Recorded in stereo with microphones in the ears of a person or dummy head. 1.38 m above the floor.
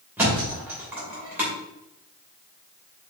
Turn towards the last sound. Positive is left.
turn(degrees=-15)  # may be behind; listen again after turning